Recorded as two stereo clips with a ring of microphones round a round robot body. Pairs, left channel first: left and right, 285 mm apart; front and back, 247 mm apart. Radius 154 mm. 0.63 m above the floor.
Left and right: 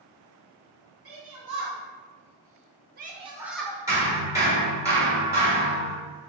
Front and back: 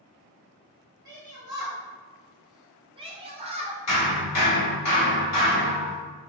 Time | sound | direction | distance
1.1 | a shout | 100° right | 1.6 m
3.9 | hammering | 10° right | 1.4 m